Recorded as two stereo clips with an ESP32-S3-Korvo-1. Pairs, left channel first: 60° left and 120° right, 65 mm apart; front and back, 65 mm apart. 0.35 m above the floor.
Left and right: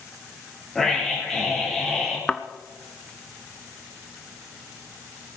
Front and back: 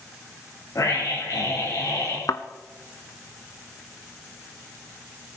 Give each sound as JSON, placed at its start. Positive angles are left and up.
{"t": 0.8, "sound": "a scream", "azimuth_deg": -25, "distance_m": 8.5}
{"t": 2.3, "sound": "a thud", "azimuth_deg": -20, "distance_m": 0.8}